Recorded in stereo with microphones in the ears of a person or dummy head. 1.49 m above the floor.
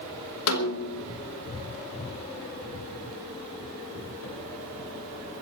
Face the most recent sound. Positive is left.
turn(degrees=75)  # may be behind; listen again after turning